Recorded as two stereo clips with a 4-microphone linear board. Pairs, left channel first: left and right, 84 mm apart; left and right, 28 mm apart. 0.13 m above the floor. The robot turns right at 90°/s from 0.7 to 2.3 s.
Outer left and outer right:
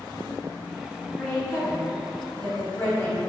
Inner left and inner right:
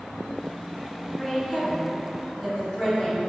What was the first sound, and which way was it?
A woman speaking, 10° left (ahead or behind).